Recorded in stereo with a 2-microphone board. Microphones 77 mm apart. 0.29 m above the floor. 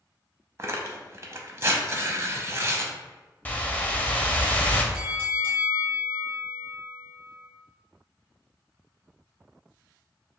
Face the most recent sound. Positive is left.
turn(degrees=-25)  # may be behind; listen again after turning